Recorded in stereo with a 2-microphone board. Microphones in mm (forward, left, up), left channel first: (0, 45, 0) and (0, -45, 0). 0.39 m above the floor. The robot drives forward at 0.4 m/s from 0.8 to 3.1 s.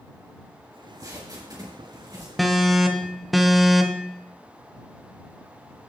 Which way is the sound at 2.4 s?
Centre (ahead or behind).